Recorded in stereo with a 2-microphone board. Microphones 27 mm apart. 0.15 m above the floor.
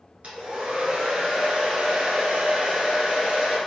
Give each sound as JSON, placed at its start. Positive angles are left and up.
{"t": 0.2, "sound": "a hair dryer", "side_deg": -60, "distance_m": 1.3}